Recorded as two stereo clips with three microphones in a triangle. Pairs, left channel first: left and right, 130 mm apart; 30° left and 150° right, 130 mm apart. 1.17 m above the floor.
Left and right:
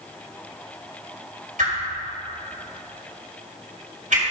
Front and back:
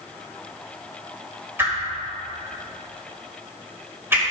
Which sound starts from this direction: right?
A whoosh, at 1.6 s.